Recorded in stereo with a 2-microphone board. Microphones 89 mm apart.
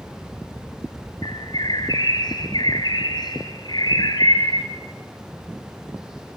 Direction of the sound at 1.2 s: 55° left (ahead or behind).